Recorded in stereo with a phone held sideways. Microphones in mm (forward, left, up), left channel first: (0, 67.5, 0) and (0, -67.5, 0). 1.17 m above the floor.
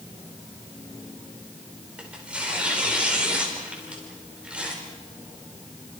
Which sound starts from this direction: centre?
Tearing paper, at 2.0 s.